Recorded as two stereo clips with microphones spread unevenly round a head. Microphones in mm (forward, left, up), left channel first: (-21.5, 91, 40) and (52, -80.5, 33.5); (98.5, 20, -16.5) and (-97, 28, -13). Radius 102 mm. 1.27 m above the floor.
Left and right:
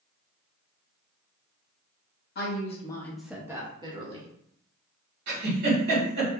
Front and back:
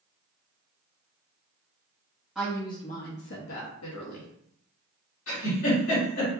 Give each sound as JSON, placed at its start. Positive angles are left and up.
{"t": 2.4, "sound": "a woman speaking", "azimuth_deg": 90, "distance_m": 0.9}
{"t": 5.3, "sound": "a giggle", "azimuth_deg": -35, "distance_m": 2.5}